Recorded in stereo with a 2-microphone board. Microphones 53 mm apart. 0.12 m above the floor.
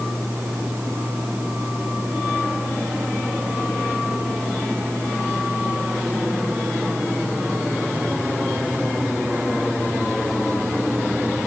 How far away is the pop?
I don't hear a pop.